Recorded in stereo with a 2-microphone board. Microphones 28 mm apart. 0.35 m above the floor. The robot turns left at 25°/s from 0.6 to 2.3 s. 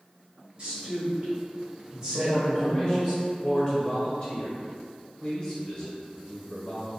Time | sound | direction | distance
0.6 | a woman speaking | 105° right | 1.3 m
2.1 | a man speaking | 25° left (ahead or behind) | 1.0 m